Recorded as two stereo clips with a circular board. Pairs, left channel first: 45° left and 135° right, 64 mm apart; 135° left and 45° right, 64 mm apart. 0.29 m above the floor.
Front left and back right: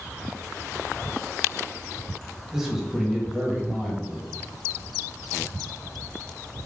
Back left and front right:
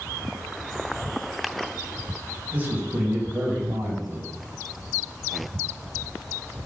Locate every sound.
2.5 s a man speaking: 60° right, 1.1 m